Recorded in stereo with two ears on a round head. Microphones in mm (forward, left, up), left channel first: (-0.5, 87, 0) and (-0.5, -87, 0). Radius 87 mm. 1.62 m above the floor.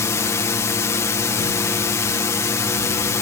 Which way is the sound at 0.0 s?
15° left (ahead or behind).